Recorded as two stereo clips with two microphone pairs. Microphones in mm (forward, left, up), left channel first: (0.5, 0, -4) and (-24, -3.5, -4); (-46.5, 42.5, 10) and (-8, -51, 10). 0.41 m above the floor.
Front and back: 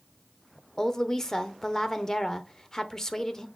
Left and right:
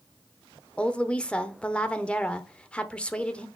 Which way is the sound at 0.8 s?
45° left.